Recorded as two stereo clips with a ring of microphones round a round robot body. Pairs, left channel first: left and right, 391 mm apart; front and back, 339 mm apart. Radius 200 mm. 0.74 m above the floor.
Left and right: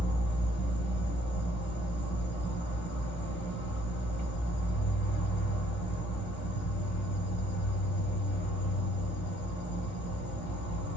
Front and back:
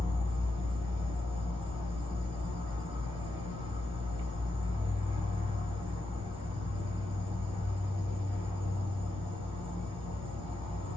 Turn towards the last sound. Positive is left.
turn(degrees=120)